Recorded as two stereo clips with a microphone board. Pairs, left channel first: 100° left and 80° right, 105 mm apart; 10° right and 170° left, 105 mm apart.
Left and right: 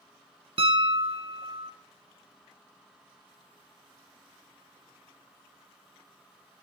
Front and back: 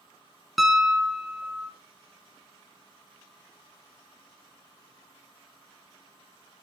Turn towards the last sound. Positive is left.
turn(degrees=-105)